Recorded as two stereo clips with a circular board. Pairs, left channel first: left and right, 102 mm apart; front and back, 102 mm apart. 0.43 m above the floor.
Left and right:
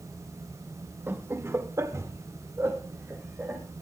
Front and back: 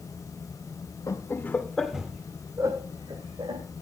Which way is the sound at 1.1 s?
35° right.